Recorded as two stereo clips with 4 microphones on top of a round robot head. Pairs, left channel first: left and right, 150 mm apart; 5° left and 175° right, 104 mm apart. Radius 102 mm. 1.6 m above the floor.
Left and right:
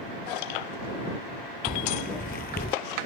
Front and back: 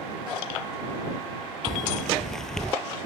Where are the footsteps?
95° left; by 2.8 s 90° left.